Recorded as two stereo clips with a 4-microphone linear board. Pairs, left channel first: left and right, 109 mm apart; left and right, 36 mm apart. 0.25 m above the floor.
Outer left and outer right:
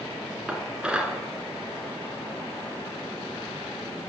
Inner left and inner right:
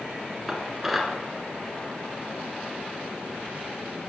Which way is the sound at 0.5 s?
10° right (ahead or behind).